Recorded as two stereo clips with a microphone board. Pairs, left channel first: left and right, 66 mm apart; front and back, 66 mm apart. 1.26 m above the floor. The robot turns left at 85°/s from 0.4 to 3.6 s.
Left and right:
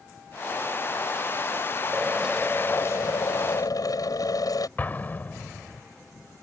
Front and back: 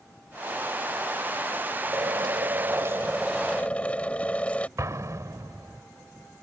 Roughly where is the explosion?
Behind left.